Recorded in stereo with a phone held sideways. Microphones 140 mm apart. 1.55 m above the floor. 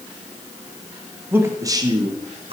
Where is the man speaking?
15° right (ahead or behind), 1.3 m; by 2.5 s 45° right (ahead or behind), 1.5 m.